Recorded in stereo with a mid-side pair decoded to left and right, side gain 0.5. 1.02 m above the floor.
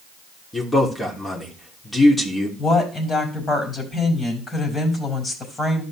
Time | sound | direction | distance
0.5 | a man speaking | 20° left | 3 m
2.6 | a woman speaking | 35° left | 5.5 m